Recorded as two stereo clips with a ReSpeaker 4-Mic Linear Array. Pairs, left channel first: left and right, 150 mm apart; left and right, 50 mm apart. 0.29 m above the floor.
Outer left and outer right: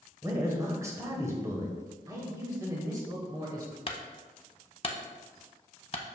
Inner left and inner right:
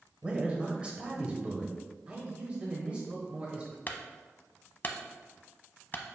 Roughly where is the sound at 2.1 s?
Right.